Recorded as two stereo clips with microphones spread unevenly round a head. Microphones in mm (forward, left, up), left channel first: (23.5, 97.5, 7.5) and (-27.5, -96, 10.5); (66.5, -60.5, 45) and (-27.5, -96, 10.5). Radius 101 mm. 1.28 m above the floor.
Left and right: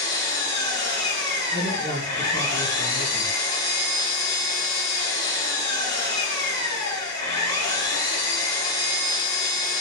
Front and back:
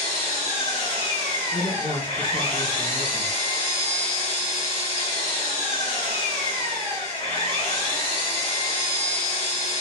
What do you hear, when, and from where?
0.0 s an engine running: 90° left, 1.4 m
1.5 s a man speaking: 30° left, 1.7 m